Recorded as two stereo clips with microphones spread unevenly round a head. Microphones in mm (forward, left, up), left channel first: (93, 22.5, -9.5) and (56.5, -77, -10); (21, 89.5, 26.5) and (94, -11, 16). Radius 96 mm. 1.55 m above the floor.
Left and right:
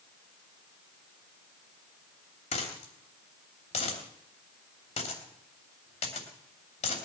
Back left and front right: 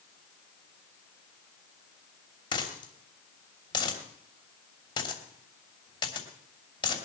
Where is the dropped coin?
80° left, 3 m.